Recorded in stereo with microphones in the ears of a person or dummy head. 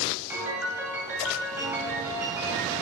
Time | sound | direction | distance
0.3 | a piano | 10° right (ahead or behind) | 3 m